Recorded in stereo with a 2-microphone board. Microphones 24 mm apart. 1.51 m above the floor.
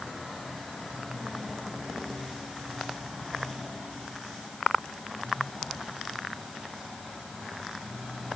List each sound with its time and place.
Only background noise.